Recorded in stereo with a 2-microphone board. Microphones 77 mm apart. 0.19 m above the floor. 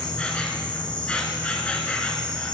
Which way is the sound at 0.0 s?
15° left (ahead or behind).